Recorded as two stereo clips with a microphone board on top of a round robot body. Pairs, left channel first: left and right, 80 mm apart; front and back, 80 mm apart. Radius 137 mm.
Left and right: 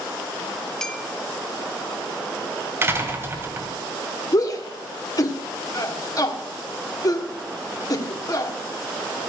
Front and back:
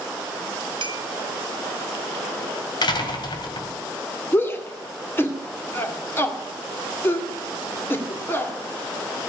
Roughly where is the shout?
Ahead left.